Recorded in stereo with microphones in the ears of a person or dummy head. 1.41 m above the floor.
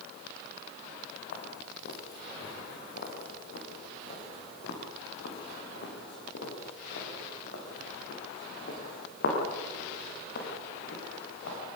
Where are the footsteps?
55° left (ahead or behind), 4.5 m; by 11.6 s 70° left (ahead or behind), 10 m.